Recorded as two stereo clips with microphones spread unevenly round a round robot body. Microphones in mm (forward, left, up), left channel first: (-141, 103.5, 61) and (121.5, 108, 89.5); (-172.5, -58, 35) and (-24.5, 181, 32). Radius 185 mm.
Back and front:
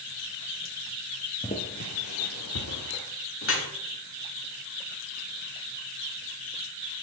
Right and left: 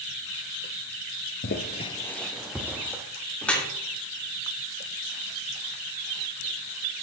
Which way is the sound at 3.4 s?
150° left.